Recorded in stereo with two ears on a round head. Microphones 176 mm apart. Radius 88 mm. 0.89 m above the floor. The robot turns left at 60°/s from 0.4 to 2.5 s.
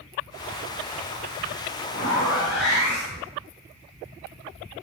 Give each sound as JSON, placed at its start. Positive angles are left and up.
{"t": 1.9, "sound": "a zipper", "azimuth_deg": 135, "distance_m": 1.3}